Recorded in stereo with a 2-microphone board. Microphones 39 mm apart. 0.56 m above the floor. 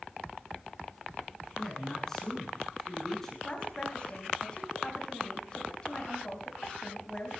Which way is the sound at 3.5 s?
25° left (ahead or behind).